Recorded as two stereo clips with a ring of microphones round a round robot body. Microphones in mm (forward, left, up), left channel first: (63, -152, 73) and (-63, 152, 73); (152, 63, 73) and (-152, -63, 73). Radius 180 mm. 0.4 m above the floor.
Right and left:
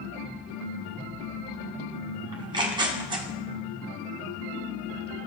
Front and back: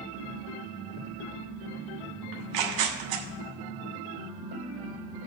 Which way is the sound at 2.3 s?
170° right.